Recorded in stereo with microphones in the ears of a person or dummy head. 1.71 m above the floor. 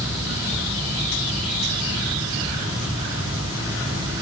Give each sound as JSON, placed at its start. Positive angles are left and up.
{"t": 0.0, "sound": "a fan", "side_deg": -15, "distance_m": 1.2}